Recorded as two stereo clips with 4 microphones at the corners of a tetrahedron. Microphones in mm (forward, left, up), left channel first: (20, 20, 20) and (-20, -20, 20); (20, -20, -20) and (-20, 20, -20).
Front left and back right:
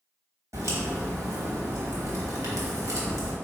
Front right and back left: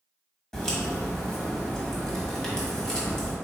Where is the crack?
125° right, 1.2 m.